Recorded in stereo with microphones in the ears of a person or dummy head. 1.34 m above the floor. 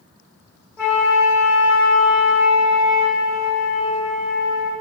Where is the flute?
20° left (ahead or behind), 1.5 m.